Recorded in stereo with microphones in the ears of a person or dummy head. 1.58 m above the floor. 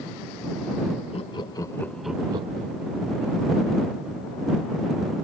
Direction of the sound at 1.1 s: 25° left (ahead or behind).